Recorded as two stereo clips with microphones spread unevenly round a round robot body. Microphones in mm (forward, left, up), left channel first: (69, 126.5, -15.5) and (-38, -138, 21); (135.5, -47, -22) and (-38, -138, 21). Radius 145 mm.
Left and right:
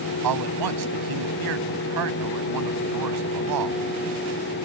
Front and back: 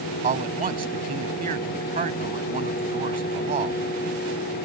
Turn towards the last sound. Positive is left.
turn(degrees=-105)